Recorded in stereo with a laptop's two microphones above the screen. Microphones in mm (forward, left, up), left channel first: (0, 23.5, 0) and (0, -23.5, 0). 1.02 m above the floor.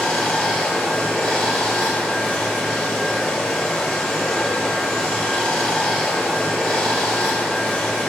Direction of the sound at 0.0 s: 15° left (ahead or behind).